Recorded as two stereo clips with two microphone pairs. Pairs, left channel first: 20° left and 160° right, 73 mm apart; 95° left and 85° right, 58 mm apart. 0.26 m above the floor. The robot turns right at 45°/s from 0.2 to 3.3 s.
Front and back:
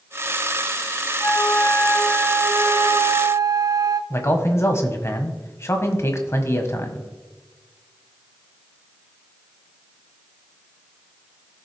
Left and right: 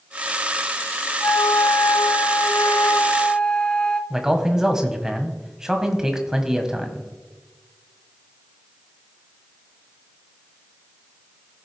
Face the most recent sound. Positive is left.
turn(degrees=-10)